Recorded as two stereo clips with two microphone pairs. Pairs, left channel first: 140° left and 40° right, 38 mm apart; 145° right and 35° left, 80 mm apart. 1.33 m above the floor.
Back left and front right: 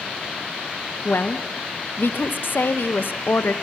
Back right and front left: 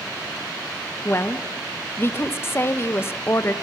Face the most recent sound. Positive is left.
turn(degrees=160)